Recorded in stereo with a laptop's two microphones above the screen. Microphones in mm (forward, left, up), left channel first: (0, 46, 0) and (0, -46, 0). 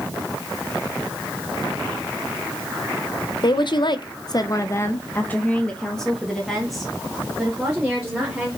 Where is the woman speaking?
50° left (ahead or behind), 0.9 m; by 8.5 s 5° right (ahead or behind), 3 m.